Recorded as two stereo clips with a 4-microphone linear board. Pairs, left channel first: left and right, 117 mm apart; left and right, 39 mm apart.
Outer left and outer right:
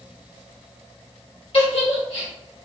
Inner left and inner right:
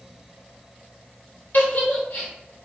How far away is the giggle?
About 1.7 m.